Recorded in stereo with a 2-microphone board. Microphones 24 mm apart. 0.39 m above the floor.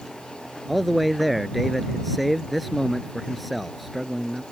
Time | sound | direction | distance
0.7 | a man speaking | centre (ahead or behind) | ?